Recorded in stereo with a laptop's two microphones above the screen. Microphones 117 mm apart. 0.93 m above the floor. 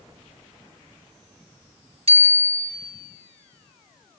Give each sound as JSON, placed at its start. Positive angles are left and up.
{"t": 2.1, "sound": "a bicycle bell", "side_deg": -60, "distance_m": 5.0}